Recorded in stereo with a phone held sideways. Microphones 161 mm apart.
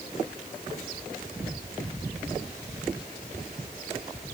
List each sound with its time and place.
Only background noise.